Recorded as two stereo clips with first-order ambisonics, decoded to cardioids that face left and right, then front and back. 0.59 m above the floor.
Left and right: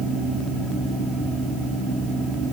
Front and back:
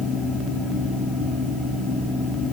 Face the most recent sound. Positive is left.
No sound to turn to.